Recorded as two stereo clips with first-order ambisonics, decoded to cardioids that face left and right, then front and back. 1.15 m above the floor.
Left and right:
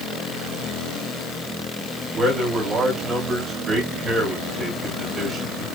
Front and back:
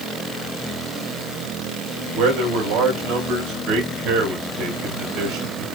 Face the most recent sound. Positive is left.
turn(degrees=-160)